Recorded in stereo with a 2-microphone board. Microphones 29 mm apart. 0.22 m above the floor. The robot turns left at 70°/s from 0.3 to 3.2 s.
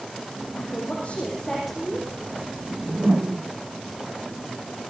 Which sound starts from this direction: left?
A woman speaking, at 0.6 s.